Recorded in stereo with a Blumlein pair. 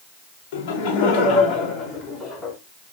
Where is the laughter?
45° left, 3.5 m; by 2.5 s 10° left, 4 m.